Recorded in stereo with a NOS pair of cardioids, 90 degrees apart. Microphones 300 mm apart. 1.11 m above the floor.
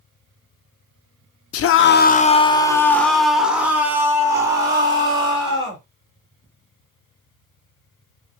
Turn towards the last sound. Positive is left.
turn(degrees=-15)